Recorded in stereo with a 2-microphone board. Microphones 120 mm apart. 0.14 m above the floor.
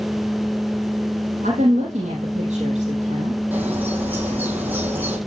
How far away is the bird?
About 8 m.